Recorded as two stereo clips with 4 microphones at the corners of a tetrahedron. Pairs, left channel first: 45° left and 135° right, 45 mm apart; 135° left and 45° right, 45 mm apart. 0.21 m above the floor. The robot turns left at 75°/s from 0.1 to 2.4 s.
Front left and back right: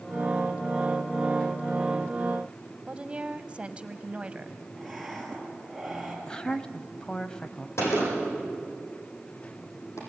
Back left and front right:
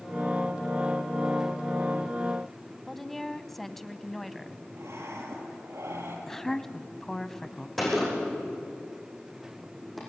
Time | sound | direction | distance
2.9 | a woman speaking | 145° right | 1.0 m
4.8 | breathing | 40° right | 4 m
6.3 | a woman speaking | 70° left | 1.0 m
7.8 | a gunshot | 45° left | 8.5 m